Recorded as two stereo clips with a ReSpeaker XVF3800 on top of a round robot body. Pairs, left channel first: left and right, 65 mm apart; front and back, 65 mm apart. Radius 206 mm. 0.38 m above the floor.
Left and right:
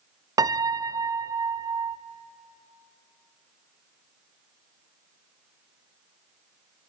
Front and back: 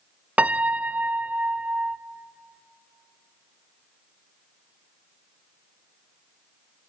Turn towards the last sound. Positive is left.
turn(degrees=-110)